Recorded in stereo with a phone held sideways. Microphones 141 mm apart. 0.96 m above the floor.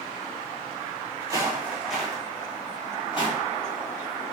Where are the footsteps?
25° right (ahead or behind), 1.1 m; by 3.4 s 40° left (ahead or behind), 1.2 m.